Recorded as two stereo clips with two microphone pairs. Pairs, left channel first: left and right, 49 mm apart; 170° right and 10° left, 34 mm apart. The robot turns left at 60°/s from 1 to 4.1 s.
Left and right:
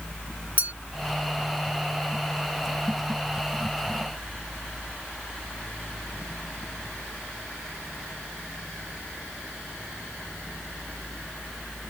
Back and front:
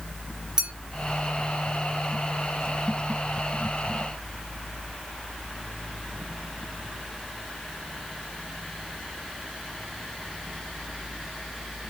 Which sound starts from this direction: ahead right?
A clink, at 0.6 s.